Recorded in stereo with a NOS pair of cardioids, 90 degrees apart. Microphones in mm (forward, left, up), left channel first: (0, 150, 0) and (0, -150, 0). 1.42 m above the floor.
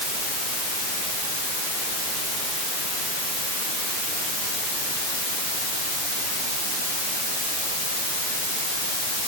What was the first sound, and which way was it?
Only background noise.